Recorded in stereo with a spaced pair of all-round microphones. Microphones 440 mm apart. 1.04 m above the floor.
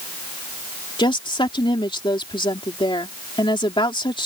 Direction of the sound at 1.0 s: 10° left (ahead or behind).